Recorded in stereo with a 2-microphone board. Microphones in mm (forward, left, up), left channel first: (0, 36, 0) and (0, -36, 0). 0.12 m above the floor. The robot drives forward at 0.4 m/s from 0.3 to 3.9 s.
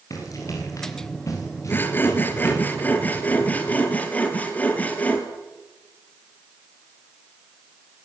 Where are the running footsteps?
50° left (ahead or behind), 9 m; by 2.6 s 40° left (ahead or behind), 8 m.